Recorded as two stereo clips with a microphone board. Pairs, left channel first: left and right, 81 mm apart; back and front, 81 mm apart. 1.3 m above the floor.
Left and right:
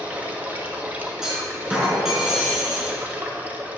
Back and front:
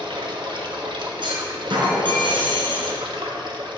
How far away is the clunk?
About 3.5 m.